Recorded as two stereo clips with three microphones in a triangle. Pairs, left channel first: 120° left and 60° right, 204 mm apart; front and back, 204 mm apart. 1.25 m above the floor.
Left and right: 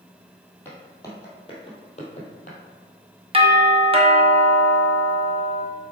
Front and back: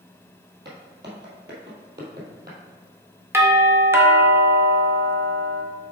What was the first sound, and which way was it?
Footsteps, 160° right.